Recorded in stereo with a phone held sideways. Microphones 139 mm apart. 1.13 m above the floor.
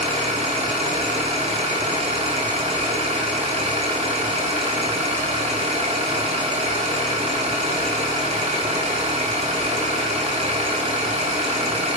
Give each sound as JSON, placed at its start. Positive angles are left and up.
{"t": 0.0, "sound": "an engine running", "side_deg": -50, "distance_m": 2.5}